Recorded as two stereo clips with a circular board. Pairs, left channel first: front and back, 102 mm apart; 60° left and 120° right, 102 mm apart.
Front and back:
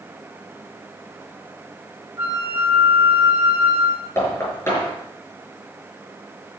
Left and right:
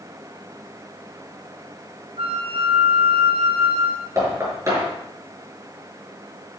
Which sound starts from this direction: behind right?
A flute, at 2.2 s.